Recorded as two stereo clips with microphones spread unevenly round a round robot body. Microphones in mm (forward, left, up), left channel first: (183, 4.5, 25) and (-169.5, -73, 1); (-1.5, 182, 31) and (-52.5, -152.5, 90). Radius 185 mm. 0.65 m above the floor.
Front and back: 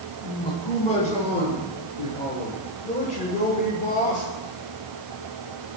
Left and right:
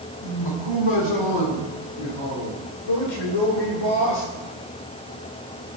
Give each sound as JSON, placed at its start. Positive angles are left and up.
{"t": 0.2, "sound": "a man speaking", "azimuth_deg": 85, "distance_m": 7.5}